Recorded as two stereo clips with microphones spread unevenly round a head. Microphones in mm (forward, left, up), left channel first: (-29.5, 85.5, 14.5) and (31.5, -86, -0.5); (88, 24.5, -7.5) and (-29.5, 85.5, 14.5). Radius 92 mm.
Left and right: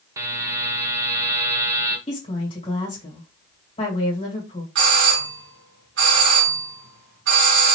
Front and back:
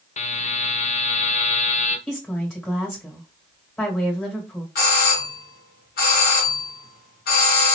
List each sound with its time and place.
0.2 s a buzzer: 5° left, 0.8 m
2.1 s a woman speaking: 50° left, 1.8 m
4.8 s a doorbell: 45° right, 1.8 m